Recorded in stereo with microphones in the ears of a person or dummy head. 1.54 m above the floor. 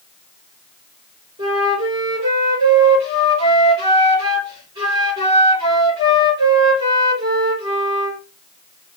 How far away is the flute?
About 4 m.